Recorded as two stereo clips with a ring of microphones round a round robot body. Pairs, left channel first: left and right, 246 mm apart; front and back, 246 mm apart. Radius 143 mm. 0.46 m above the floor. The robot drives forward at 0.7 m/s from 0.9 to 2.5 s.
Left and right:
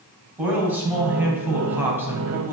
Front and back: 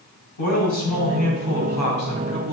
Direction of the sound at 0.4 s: 5° right.